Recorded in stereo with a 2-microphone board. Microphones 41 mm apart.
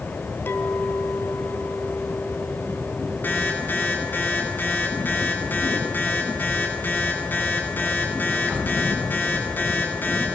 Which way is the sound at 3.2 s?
45° left (ahead or behind).